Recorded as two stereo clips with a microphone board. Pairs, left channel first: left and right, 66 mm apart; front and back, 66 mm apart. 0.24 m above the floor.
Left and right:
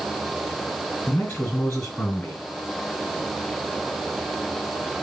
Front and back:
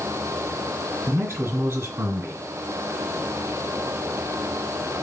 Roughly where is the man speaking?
Behind left.